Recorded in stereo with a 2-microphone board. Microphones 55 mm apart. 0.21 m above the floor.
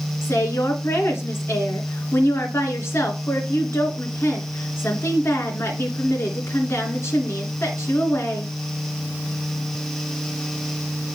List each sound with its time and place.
0.2 s a woman speaking: 55° left (ahead or behind), 2.5 m